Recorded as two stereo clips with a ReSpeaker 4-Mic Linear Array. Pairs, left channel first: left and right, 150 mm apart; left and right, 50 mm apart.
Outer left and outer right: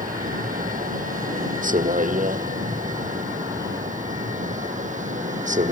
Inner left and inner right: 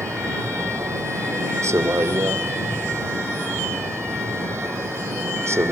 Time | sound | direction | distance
0.0 | a vehicle | 65° right (ahead or behind) | ?